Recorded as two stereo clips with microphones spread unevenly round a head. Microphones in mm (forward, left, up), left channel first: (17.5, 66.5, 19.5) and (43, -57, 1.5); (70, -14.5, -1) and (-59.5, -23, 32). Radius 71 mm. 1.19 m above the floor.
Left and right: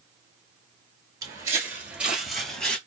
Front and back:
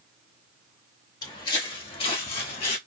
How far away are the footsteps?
About 1.2 m.